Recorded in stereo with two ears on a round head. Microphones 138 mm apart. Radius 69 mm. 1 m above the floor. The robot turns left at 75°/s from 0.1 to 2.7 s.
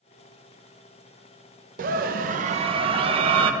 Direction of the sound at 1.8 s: 70° right.